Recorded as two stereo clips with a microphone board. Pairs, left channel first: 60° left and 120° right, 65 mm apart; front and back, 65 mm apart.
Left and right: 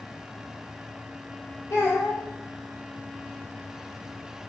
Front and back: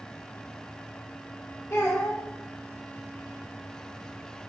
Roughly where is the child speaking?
Ahead left.